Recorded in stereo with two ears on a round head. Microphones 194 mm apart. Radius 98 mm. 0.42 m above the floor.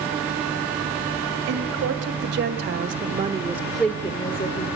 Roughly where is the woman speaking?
Right.